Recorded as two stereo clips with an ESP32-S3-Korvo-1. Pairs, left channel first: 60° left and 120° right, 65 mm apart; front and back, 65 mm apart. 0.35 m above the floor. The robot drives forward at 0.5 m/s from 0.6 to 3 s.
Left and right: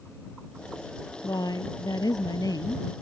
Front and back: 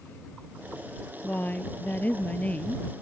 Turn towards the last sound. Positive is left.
turn(degrees=70)